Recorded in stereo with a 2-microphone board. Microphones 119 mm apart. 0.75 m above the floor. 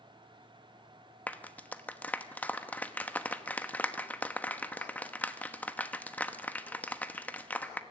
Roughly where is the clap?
Centre.